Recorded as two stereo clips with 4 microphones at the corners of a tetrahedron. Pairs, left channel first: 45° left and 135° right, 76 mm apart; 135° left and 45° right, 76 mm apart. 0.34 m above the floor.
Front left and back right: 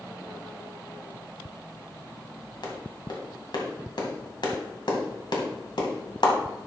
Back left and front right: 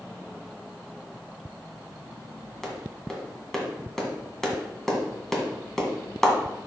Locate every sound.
2.6 s a clap: 50° left, 1.8 m